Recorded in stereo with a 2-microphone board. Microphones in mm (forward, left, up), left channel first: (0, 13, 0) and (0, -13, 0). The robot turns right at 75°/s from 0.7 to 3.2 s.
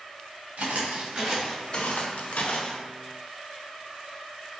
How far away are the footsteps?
About 1.5 m.